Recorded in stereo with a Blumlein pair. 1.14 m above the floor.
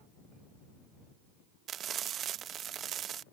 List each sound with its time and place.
1.7 s frying: 30° right